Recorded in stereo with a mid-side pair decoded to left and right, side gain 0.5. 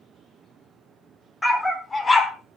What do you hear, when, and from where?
1.4 s a dog barking: 20° left, 3.5 m; by 2.6 s 35° left, 3 m